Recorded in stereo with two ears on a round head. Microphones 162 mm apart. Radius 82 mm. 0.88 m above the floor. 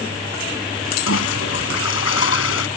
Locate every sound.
1.1 s a toilet flushing: 85° left